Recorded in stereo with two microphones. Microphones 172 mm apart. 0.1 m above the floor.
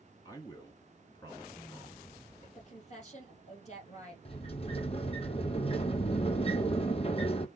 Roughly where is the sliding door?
Left.